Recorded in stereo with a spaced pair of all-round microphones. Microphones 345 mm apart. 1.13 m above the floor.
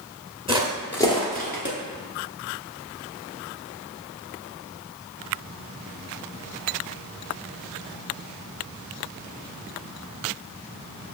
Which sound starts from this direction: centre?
Footsteps, at 0.5 s.